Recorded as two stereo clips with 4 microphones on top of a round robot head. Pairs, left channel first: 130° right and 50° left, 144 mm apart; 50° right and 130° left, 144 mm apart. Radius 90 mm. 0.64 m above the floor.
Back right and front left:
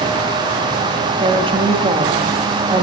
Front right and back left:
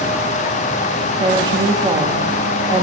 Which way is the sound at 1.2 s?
85° left.